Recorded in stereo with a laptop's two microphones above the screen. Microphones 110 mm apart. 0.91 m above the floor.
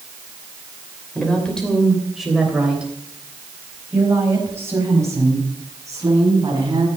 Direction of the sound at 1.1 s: 10° left (ahead or behind).